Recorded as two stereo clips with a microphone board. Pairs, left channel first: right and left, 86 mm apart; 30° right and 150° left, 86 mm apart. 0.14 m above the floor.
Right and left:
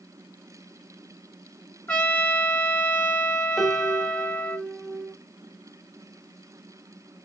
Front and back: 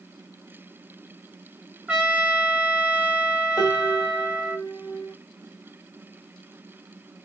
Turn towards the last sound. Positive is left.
turn(degrees=0)